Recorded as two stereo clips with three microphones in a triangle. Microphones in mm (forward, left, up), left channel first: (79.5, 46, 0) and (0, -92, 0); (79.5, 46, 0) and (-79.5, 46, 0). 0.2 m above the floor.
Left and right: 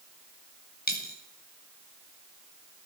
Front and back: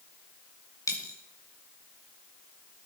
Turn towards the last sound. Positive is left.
turn(degrees=70)